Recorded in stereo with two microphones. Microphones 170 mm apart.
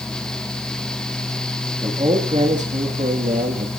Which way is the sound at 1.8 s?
35° right (ahead or behind).